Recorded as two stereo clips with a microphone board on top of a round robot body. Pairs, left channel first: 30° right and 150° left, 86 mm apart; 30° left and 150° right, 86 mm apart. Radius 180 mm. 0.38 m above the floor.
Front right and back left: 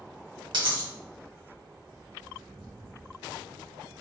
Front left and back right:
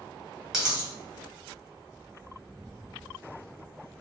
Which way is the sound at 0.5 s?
125° left.